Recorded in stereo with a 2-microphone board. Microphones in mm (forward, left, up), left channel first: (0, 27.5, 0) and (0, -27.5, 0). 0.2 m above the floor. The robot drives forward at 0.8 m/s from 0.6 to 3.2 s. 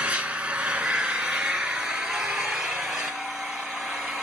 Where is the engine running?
20° right (ahead or behind), 2.0 m; by 4.2 s 10° right (ahead or behind), 4 m.